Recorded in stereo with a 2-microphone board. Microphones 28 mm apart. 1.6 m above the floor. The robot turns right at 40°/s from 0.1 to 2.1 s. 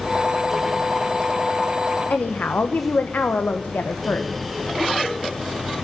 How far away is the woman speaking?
About 1.1 m.